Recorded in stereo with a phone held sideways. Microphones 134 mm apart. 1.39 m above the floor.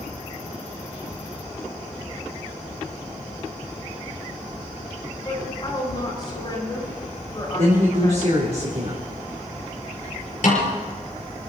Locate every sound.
5.2 s a woman speaking: 35° left (ahead or behind), 7 m
7.6 s a woman speaking: 55° right (ahead or behind), 3.5 m
10.4 s a snare drum: 65° left (ahead or behind), 6 m